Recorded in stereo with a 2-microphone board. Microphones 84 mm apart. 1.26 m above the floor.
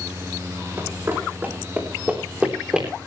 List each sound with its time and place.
0.8 s running footsteps: 30° right (ahead or behind), 4.5 m; by 2.9 s 10° right (ahead or behind), 3.5 m